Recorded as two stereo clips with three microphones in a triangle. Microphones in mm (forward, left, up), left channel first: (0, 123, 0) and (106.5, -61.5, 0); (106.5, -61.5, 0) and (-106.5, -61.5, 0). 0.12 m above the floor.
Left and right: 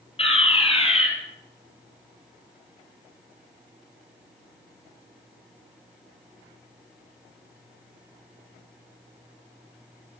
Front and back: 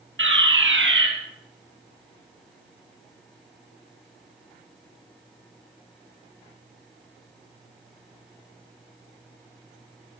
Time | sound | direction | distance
0.2 | a fire alarm | straight behind | 5 m